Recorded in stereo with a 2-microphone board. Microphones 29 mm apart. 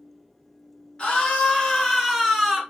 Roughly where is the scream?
Left.